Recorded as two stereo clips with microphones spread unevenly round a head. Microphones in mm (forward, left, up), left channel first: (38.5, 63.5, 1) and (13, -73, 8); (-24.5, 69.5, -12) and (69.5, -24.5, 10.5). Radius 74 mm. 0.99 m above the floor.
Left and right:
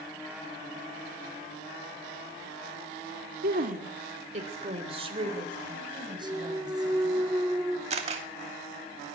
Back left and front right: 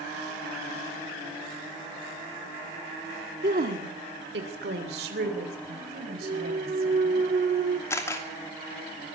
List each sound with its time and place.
3.4 s a woman speaking: 85° right, 2.0 m; by 7.2 s 40° right, 6.5 m
6.2 s a clunk: 35° right, 1.1 m
7.9 s a camera shutter: 155° right, 2.5 m